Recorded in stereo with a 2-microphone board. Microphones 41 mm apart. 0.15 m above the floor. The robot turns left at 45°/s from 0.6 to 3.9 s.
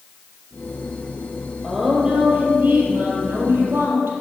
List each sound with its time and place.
1.6 s a woman speaking: 5° right, 4.5 m; by 4.1 s 105° right, 4.5 m